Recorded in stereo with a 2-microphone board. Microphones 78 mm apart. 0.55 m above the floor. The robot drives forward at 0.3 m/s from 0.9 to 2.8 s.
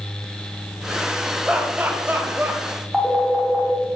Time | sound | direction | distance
1.5 | laughter | 20° right (ahead or behind) | 0.8 m
2.9 | a phone ringing | 5° right (ahead or behind) | 0.8 m